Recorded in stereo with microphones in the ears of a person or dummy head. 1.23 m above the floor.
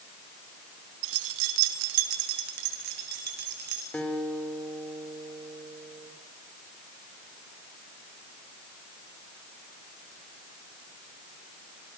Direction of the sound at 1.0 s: 75° right (ahead or behind).